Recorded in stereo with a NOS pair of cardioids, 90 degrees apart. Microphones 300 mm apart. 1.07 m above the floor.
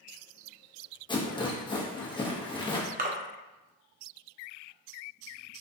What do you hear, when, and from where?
1.1 s a rattle: 15° left, 0.6 m
3.0 s a splash: 30° right, 0.5 m